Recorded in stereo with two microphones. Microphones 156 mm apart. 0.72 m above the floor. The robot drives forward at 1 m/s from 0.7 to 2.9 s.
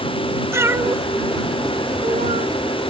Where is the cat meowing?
15° right (ahead or behind); by 2.5 s 55° right (ahead or behind).